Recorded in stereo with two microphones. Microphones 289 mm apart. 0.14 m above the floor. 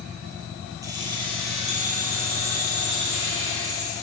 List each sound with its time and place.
0.8 s keys jangling: 10° right (ahead or behind), 2.5 m; by 3.9 s 50° right (ahead or behind), 3 m